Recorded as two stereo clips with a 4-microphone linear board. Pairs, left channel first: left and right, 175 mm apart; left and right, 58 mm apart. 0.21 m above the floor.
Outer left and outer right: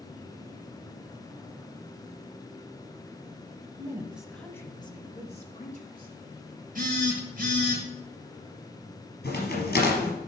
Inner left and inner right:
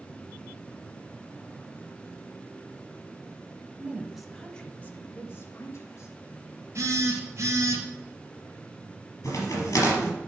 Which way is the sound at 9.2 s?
65° left (ahead or behind).